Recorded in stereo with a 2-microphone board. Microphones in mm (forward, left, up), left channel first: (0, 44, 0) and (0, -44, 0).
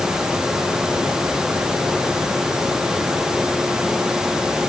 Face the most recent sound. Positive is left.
No sound to turn to.